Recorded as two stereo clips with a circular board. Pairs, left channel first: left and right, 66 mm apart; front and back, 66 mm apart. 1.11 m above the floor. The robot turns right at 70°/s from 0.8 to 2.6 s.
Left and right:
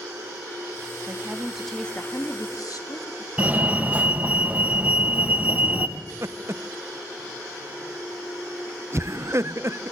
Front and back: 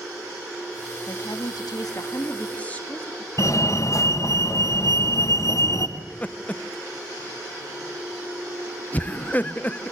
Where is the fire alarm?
25° right, 2 m.